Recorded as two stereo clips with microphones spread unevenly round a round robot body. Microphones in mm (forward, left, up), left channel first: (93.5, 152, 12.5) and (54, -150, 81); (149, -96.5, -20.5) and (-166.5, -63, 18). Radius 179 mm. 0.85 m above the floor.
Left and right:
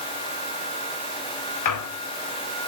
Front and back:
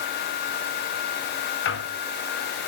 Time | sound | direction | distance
1.6 | a squeak | 55° left | 1.7 m